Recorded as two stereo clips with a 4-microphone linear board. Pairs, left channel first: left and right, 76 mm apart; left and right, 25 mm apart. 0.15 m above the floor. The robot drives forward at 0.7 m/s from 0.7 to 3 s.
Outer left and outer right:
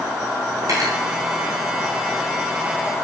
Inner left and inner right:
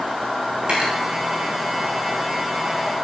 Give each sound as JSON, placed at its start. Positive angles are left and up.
{"t": 0.6, "sound": "cutlery clinking", "side_deg": -50, "distance_m": 7.0}